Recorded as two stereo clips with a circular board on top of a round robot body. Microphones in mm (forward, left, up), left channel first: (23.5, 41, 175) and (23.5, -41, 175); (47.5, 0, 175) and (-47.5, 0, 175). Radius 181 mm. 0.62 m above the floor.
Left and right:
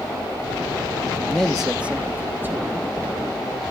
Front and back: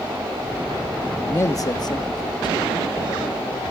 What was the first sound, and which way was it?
A man speaking, 45° left.